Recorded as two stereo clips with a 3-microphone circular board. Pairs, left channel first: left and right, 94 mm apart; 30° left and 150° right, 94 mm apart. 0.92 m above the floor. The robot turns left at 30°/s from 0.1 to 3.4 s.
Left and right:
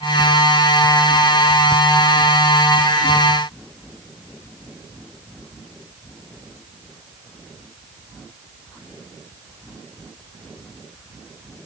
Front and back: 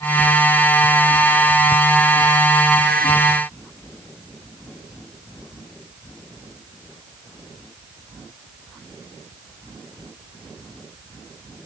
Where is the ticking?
No ticking in this recording.